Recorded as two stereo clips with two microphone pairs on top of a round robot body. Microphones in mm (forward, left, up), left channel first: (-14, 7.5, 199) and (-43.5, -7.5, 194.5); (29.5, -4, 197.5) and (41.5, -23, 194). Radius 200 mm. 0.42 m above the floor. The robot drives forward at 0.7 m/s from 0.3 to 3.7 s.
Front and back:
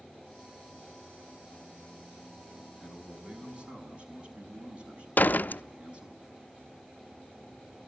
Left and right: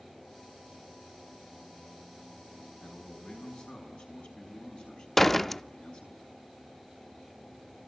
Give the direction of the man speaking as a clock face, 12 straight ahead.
7 o'clock.